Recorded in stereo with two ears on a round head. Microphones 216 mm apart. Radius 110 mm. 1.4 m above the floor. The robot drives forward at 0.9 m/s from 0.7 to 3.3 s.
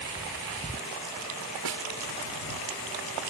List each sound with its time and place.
1.6 s a snare drum: 90° right